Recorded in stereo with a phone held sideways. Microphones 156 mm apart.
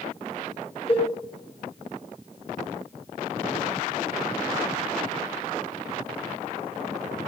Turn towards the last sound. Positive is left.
turn(degrees=40)  # may be behind; listen again after turning